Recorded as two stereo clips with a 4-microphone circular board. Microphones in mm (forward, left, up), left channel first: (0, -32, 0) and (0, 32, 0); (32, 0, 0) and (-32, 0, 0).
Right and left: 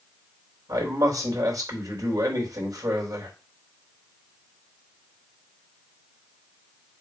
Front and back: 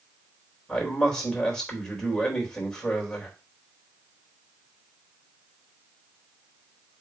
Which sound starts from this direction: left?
A man speaking, at 0.7 s.